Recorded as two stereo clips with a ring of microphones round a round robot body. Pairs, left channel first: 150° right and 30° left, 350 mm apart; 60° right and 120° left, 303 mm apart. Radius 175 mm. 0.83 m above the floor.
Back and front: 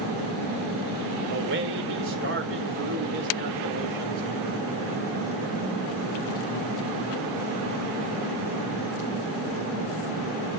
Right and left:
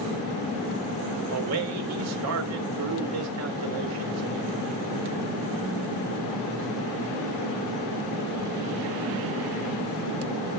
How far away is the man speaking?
About 3.5 m.